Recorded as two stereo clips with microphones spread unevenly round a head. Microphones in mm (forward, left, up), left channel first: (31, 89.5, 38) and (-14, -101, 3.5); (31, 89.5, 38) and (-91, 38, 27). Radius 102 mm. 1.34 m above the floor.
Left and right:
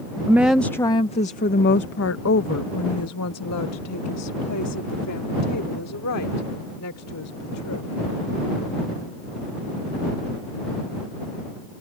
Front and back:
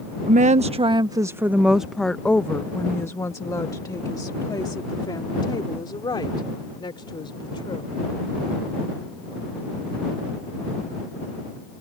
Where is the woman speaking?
175° left; by 8.0 s 75° left.